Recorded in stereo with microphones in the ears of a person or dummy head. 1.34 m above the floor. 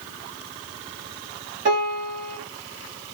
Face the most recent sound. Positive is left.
turn(degrees=-45)  # may be behind; listen again after turning